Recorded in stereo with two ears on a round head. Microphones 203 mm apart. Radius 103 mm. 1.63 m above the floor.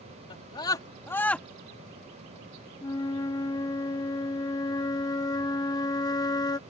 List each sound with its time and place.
0.3 s a scream: 20° left (ahead or behind); by 1.5 s 5° left (ahead or behind)
2.8 s a flute: 15° left (ahead or behind)